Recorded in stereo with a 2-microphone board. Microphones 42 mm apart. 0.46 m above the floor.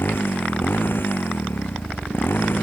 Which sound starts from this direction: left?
A motorcycle, at 0.0 s.